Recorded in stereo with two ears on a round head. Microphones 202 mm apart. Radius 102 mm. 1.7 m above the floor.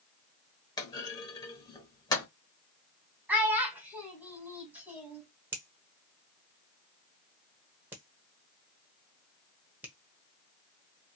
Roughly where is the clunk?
Centre.